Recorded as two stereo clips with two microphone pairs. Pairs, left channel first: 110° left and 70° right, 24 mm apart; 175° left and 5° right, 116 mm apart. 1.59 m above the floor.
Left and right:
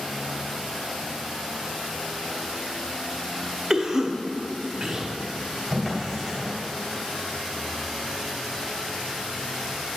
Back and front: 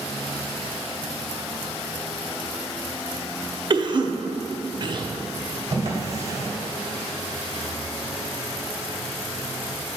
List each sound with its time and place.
3.7 s a cough: 15° right, 0.6 m
5.7 s a drawer: 45° left, 2 m